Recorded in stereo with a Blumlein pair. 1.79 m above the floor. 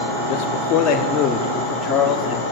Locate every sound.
0.3 s a man speaking: 30° left, 4 m; by 2.4 s straight ahead, 4.5 m